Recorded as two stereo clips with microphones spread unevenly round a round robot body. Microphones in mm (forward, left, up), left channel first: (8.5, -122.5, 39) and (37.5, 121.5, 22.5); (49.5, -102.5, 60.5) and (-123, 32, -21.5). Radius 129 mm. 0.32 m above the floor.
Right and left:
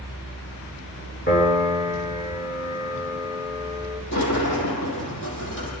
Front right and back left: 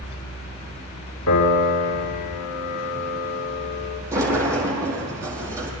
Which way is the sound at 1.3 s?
45° right.